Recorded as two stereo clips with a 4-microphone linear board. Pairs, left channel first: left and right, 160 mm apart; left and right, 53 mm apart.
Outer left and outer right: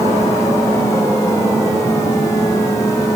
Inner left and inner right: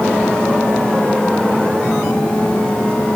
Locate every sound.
Only background noise.